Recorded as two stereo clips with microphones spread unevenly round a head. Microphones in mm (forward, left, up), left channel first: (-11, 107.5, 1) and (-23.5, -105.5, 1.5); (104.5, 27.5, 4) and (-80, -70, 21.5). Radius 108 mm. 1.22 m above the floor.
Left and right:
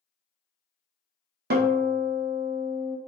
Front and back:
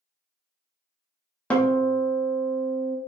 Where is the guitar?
60° right, 0.8 m.